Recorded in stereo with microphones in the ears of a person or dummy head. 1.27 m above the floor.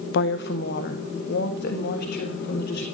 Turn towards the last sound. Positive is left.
turn(degrees=60)  # may be behind; listen again after turning